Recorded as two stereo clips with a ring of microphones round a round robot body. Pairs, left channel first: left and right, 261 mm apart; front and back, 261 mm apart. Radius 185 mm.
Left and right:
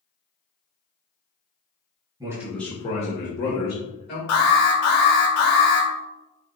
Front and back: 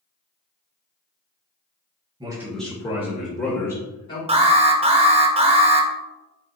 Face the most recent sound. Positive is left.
turn(degrees=115)